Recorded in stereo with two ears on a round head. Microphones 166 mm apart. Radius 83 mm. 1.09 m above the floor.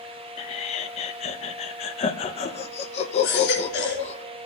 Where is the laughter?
35° left (ahead or behind), 0.6 m.